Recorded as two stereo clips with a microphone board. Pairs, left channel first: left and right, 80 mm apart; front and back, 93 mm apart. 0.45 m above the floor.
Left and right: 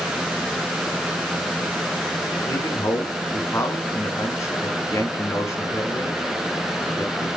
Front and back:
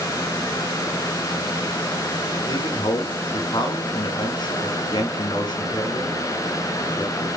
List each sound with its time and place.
2.5 s a man speaking: 35° left, 4 m